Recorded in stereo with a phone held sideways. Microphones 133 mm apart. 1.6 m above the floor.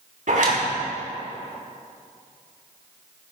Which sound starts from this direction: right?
A zipper, at 0.3 s.